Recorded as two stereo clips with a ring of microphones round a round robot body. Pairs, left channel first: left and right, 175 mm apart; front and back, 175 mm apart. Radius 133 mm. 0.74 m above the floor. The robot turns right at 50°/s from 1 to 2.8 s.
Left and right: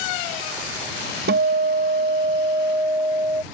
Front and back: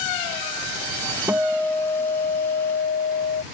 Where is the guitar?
105° right; by 3.4 s 25° right.